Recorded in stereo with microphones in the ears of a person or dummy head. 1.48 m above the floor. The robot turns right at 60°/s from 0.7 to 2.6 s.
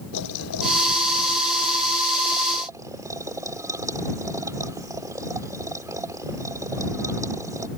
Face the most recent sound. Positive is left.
turn(degrees=-165)